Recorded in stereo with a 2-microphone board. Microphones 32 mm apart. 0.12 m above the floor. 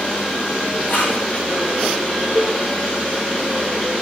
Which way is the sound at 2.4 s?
60° left (ahead or behind).